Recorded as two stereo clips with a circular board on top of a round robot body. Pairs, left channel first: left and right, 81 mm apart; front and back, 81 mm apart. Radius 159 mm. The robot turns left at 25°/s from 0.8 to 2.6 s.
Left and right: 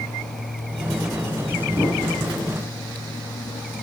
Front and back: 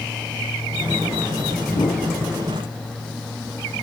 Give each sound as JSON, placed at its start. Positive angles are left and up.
{"t": 1.7, "sound": "a whoosh", "azimuth_deg": -15, "distance_m": 2.5}